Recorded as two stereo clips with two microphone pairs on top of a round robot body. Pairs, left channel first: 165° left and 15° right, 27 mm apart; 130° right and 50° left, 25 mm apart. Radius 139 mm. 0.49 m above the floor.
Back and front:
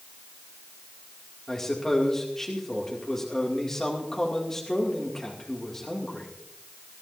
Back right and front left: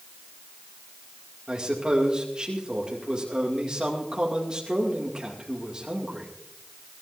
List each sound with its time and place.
1.5 s a man speaking: 95° left, 2 m